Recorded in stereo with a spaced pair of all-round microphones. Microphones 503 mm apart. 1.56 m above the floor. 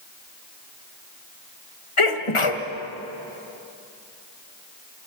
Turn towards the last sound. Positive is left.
turn(degrees=75)  # may be behind; listen again after turning